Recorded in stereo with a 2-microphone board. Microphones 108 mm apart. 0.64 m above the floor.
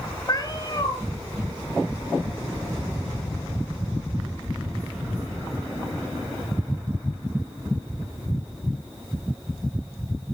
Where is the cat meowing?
40° left (ahead or behind), 1.0 m.